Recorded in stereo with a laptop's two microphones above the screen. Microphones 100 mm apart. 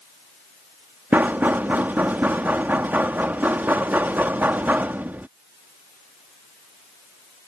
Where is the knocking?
20° right (ahead or behind).